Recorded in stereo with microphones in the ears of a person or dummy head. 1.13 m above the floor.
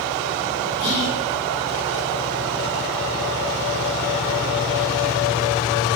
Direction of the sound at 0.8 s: 60° left (ahead or behind).